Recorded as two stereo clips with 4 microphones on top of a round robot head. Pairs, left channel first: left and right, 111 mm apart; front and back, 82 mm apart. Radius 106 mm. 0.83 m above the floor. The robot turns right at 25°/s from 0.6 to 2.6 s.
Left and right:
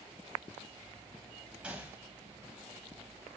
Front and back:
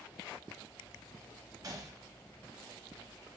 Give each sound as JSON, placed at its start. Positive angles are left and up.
{"t": 1.6, "sound": "a gunshot", "azimuth_deg": -165, "distance_m": 0.8}